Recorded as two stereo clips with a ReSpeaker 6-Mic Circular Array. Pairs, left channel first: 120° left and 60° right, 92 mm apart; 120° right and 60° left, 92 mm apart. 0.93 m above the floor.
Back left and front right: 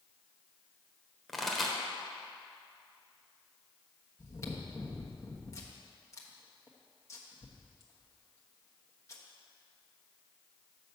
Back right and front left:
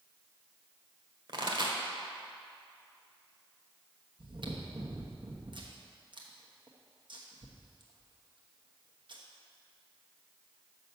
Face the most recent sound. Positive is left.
turn(degrees=70)